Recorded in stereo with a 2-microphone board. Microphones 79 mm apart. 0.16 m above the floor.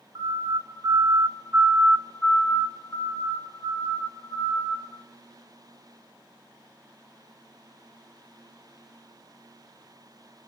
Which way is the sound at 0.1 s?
65° right (ahead or behind).